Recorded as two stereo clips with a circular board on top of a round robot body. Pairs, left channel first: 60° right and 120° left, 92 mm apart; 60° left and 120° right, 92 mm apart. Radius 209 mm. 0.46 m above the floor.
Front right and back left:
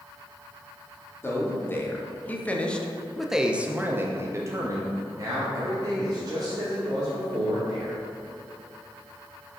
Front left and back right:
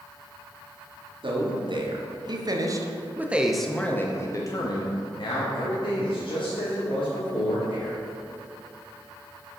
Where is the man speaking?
120° right, 1.5 m; by 8.0 s 70° left, 2.5 m.